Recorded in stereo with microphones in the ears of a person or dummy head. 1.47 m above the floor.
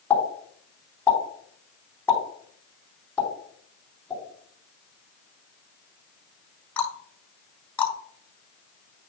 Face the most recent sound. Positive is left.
turn(degrees=10)  # may be behind; listen again after turning